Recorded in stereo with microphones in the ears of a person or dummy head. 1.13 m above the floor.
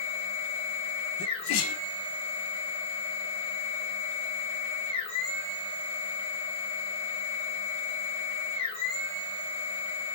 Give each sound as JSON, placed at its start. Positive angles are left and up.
{"t": 0.0, "sound": "a machine running", "side_deg": 35, "distance_m": 1.5}
{"t": 1.2, "sound": "a sneeze", "side_deg": 65, "distance_m": 0.7}